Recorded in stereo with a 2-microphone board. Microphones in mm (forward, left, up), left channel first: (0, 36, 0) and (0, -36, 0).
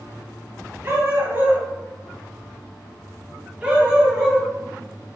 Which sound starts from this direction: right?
A dog barking, at 0.8 s.